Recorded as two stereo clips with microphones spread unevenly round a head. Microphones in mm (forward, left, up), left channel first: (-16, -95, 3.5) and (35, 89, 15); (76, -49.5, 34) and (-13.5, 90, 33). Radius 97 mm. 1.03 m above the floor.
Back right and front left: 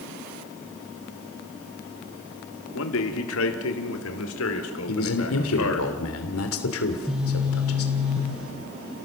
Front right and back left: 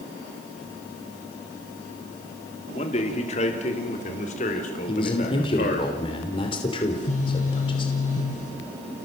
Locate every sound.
2.7 s a man speaking: 115° right, 3 m; by 5.9 s 105° right, 4.5 m
4.9 s a man speaking: 120° right, 3 m
6.8 s a phone buzzing: 15° right, 5.5 m